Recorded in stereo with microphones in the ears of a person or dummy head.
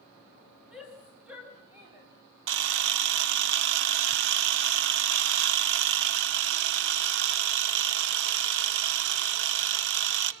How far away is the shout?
About 2.5 m.